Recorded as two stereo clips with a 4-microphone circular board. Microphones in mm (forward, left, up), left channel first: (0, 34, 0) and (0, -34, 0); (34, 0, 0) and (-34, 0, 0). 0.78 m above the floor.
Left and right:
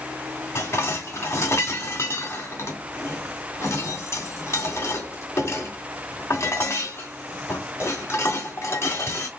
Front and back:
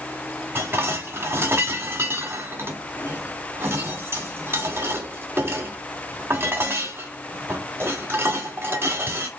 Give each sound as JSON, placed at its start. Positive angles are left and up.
{"t": 0.6, "sound": "dishes clattering", "azimuth_deg": 135, "distance_m": 1.5}